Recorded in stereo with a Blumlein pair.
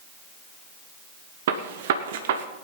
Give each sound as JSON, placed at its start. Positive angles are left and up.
{"t": 1.5, "sound": "a gunshot", "azimuth_deg": -55, "distance_m": 1.3}